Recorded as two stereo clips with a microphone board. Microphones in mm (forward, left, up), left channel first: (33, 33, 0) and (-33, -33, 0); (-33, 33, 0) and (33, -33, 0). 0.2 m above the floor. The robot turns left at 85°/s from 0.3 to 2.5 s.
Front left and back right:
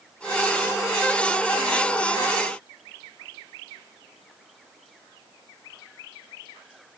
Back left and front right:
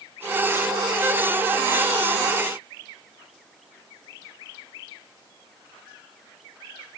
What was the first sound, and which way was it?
Only background noise.